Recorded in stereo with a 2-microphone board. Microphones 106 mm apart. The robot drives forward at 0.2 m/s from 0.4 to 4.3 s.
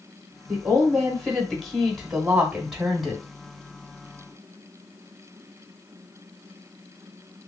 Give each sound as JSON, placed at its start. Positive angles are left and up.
{"t": 0.5, "sound": "a woman speaking", "side_deg": -5, "distance_m": 1.2}